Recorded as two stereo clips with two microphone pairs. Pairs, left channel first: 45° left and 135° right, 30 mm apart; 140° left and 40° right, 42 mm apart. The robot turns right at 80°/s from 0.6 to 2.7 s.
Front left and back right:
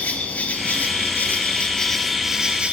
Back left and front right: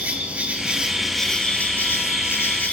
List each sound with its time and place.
0.0 s an insect: 15° left, 1.4 m; by 2.7 s straight behind, 1.4 m